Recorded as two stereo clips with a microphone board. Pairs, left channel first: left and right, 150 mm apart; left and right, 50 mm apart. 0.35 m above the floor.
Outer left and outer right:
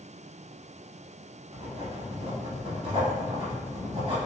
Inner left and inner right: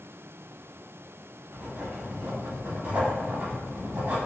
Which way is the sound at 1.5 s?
45° right (ahead or behind).